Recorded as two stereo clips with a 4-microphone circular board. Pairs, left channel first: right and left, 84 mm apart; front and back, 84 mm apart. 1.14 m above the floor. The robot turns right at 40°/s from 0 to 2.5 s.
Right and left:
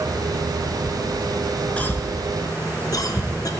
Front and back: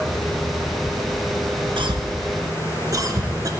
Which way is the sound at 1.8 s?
165° right.